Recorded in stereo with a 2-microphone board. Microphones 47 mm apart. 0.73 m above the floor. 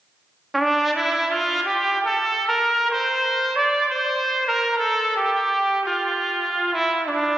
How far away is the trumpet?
About 0.6 m.